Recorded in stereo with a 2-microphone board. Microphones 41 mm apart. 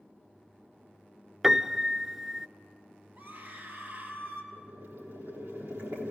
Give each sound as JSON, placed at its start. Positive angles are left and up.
{"t": 1.4, "sound": "a piano", "side_deg": -10, "distance_m": 0.5}
{"t": 3.1, "sound": "a scream", "side_deg": -55, "distance_m": 3.5}
{"t": 4.5, "sound": "boiling", "side_deg": -80, "distance_m": 4.0}